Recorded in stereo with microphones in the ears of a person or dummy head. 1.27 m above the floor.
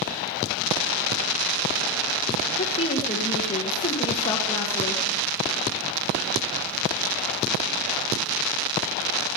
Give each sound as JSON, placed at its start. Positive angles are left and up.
{"t": 2.6, "sound": "a woman speaking", "side_deg": 30, "distance_m": 1.4}